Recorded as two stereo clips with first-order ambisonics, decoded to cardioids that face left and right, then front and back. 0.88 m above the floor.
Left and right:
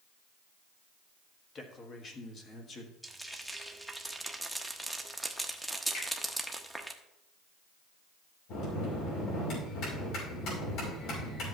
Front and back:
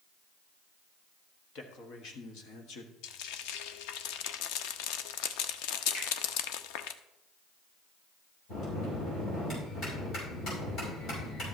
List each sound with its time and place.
1.6 s a man speaking: 35° left, 1.5 m
3.0 s frying: straight ahead, 0.6 m
5.9 s a finger snap: 40° left, 5 m
8.5 s a bell: 50° left, 5.5 m